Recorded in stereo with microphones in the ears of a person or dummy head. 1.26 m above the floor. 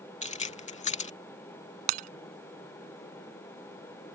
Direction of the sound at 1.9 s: 50° right (ahead or behind).